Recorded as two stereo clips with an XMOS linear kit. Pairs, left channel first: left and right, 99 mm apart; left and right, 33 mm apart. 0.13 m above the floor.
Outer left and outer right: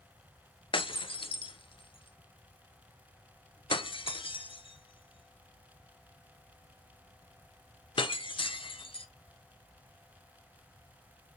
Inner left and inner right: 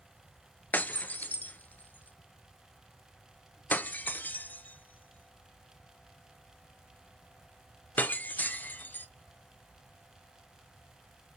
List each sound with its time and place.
0.7 s breaking glass: 60° left (ahead or behind), 0.6 m